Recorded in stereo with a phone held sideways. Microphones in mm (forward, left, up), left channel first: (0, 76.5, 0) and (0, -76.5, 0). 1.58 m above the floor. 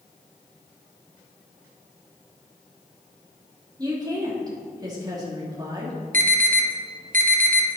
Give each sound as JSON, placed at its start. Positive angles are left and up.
{"t": 3.8, "sound": "a woman speaking", "side_deg": -25, "distance_m": 3.0}
{"t": 6.1, "sound": "an alarm", "side_deg": -65, "distance_m": 1.5}